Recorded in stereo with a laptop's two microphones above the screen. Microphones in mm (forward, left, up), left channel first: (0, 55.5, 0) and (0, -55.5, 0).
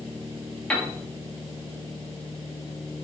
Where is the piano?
10° left (ahead or behind), 2 m.